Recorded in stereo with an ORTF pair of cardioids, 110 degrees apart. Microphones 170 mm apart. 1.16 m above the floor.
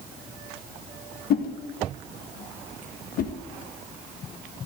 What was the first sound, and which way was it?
A whoosh, 65° left.